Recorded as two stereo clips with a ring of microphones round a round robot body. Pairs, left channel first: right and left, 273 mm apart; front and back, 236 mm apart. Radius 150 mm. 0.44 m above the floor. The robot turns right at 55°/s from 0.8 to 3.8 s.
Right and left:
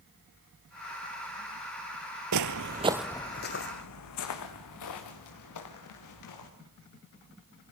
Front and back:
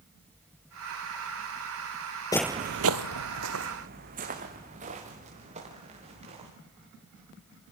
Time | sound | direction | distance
2.3 | footsteps | 70° left | 0.6 m